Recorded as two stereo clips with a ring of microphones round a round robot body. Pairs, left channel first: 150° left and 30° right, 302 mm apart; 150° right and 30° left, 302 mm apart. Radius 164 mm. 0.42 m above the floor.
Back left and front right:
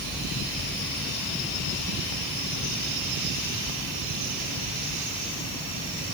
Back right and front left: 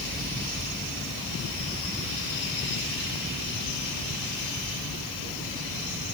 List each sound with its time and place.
Only background noise.